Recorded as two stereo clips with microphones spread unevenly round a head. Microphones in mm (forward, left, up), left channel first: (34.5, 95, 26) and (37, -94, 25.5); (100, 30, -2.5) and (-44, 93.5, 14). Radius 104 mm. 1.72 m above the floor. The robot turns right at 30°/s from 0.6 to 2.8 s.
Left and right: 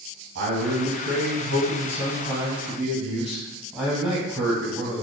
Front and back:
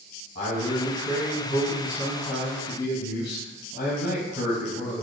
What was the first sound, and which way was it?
A man speaking, 70° right.